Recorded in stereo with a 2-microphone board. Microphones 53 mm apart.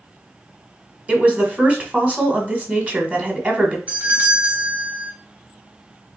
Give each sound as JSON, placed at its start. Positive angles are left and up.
{"t": 1.1, "sound": "a woman speaking", "side_deg": -25, "distance_m": 1.5}
{"t": 3.9, "sound": "a doorbell", "side_deg": -25, "distance_m": 2.0}